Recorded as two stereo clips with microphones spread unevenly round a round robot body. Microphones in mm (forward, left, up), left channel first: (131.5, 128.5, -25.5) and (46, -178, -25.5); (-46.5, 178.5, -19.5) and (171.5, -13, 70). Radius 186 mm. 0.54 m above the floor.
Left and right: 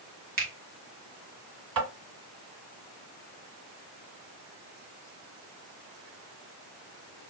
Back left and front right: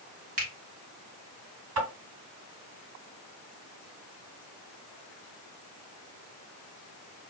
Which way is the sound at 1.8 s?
80° right.